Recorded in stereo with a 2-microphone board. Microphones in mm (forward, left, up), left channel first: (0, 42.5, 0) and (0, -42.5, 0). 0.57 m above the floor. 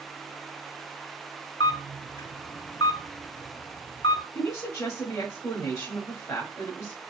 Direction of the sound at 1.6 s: 75° left (ahead or behind).